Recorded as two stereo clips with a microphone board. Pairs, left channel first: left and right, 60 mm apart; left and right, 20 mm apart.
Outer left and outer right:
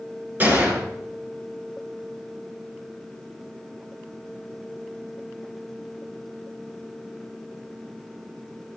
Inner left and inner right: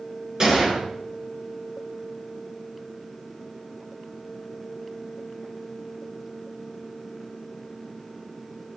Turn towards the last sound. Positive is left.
turn(degrees=-30)  # may be behind; listen again after turning